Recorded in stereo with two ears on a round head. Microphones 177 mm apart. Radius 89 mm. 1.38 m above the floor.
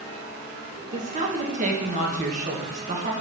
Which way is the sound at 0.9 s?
40° right (ahead or behind).